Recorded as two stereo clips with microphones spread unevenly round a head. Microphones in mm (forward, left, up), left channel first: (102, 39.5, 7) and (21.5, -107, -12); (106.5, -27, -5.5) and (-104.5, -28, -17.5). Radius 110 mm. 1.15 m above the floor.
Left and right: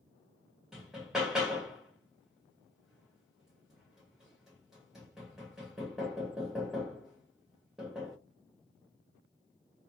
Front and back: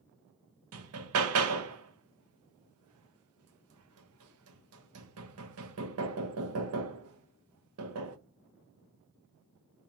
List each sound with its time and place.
0.7 s hammering: 150° left, 0.6 m